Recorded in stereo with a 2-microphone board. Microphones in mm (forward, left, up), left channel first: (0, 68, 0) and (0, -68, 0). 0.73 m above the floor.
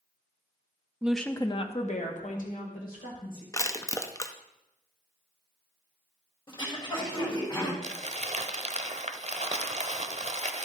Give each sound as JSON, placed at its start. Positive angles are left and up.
{"t": 1.0, "sound": "a woman speaking", "side_deg": -10, "distance_m": 0.7}
{"t": 3.5, "sound": "crushing", "side_deg": 25, "distance_m": 0.6}
{"t": 6.5, "sound": "throat clearing", "side_deg": 35, "distance_m": 3.5}
{"t": 7.8, "sound": "crumpling", "side_deg": -50, "distance_m": 0.7}